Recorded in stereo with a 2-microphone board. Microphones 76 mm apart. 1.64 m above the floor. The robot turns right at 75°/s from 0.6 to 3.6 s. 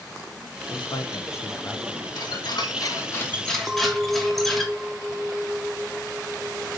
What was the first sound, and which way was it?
A man speaking, 95° left.